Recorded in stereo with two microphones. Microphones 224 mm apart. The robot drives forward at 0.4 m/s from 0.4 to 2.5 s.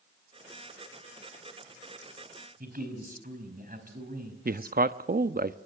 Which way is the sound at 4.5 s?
40° right (ahead or behind).